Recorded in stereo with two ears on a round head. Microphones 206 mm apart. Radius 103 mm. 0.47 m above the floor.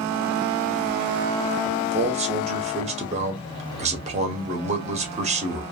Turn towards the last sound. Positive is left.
turn(degrees=-30)  # may be behind; listen again after turning